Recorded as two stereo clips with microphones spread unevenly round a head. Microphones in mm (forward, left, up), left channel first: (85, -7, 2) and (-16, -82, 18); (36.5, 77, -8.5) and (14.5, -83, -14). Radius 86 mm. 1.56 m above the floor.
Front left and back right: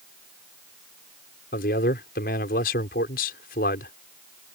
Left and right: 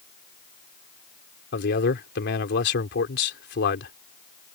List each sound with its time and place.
1.5 s a man speaking: 65° left